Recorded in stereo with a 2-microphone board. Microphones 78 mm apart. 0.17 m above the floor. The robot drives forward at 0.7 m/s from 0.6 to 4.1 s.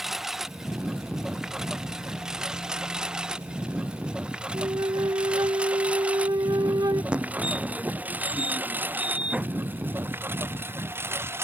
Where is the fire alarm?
15° right (ahead or behind).